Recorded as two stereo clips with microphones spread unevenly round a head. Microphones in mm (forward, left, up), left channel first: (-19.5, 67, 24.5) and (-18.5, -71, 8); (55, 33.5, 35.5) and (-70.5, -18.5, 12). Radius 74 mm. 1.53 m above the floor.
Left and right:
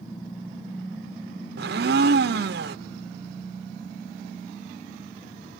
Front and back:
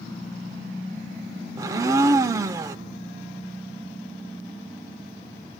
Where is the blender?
90° right, 0.7 m.